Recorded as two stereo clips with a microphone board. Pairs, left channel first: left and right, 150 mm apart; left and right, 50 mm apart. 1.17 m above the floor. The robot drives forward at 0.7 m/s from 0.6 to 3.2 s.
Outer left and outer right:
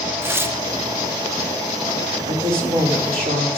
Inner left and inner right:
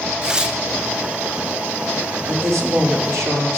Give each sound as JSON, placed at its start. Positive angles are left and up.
{"t": 0.2, "sound": "tearing paper", "side_deg": -15, "distance_m": 0.7}
{"t": 2.2, "sound": "a woman speaking", "side_deg": -70, "distance_m": 3.0}